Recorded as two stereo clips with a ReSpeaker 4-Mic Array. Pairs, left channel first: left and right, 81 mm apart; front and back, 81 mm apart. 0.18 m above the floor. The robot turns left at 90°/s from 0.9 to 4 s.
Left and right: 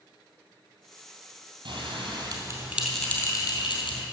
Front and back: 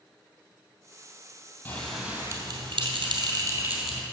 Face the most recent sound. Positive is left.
turn(degrees=85)